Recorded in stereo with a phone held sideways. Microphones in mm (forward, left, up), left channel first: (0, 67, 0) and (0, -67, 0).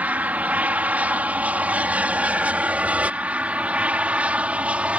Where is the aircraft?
10° right (ahead or behind).